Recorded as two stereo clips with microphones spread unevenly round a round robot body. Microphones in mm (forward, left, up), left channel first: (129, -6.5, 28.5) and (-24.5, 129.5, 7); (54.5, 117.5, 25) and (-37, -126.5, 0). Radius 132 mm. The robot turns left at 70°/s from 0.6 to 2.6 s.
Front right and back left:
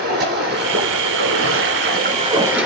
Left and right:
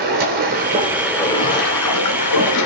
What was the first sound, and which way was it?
Running water, 170° right.